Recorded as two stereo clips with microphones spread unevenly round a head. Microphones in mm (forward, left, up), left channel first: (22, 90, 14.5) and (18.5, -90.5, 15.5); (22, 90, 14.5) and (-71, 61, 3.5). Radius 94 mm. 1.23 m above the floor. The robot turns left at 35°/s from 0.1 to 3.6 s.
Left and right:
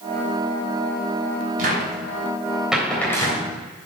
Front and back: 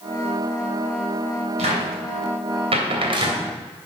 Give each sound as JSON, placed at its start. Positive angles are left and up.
{"t": 1.6, "sound": "a cupboard door", "azimuth_deg": -140, "distance_m": 3.0}